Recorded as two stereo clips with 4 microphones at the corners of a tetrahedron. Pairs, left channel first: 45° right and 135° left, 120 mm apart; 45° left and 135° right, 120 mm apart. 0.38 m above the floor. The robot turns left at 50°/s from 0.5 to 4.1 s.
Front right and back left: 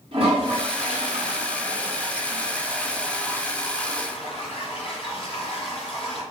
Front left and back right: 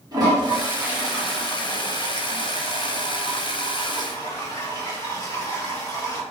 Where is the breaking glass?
No breaking glass in this recording.